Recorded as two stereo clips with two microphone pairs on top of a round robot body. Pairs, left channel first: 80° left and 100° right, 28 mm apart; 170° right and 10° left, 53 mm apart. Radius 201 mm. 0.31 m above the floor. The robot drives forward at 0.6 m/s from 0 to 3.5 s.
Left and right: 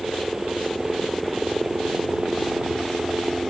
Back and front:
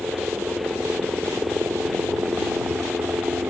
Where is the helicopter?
10° right; by 3.5 s 15° right.